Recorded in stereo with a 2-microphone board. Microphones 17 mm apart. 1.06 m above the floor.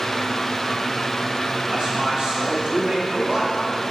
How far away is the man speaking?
About 3 m.